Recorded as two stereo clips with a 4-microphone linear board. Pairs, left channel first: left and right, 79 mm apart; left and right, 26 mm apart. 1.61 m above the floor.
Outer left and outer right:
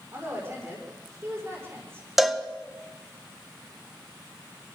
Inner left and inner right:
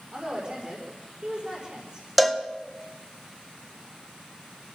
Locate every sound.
0.1 s a woman speaking: 30° right (ahead or behind), 6 m
2.2 s a cowbell: 5° right (ahead or behind), 1.3 m